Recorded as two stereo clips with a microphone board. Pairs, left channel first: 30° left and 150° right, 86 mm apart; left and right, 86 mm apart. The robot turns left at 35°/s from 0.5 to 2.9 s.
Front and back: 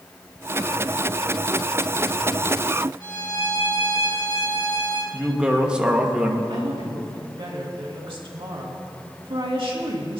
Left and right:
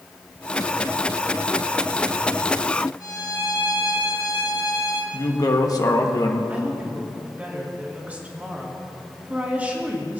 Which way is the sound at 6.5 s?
160° right.